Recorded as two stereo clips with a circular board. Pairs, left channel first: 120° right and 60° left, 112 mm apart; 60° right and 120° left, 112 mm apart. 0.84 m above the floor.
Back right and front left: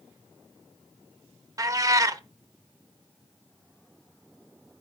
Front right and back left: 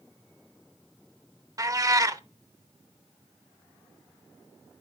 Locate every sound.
1.6 s a cat meowing: 95° left, 0.6 m